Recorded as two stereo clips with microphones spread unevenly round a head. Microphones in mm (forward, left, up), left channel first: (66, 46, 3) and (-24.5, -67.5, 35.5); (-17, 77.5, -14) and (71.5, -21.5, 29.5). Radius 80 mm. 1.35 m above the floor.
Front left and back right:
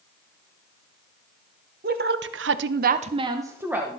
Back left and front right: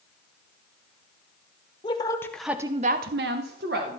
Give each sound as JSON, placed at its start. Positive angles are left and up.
{"t": 1.8, "sound": "a woman speaking", "azimuth_deg": -165, "distance_m": 0.9}